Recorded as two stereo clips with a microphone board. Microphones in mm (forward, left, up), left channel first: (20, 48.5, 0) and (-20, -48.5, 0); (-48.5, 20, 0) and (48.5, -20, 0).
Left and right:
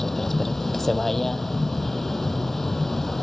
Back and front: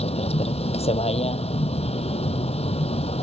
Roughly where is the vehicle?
Behind left.